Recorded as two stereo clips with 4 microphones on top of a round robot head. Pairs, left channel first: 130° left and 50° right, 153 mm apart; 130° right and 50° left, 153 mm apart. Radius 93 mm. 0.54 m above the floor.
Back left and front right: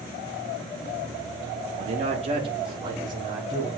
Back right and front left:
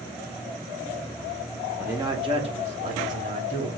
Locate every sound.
1.8 s a man speaking: 30° right, 0.9 m; by 3.8 s 15° left, 2.5 m